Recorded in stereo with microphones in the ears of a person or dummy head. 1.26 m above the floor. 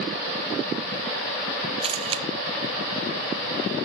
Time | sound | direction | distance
1.8 | a camera shutter | 35° right (ahead or behind) | 0.5 m